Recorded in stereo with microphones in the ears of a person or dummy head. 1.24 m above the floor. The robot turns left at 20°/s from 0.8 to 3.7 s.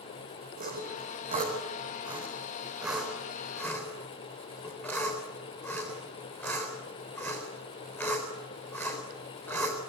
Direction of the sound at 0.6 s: 40° right (ahead or behind).